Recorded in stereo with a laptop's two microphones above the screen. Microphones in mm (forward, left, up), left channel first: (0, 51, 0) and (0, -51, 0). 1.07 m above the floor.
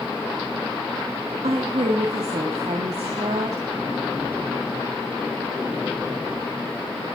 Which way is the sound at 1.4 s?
85° right.